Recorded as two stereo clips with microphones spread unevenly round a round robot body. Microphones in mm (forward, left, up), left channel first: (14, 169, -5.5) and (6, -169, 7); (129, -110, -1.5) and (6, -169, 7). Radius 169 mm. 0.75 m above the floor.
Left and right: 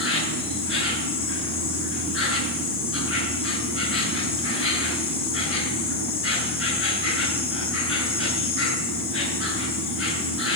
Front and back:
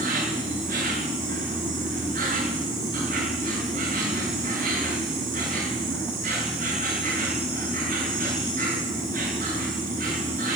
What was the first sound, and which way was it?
An insect, 145° left.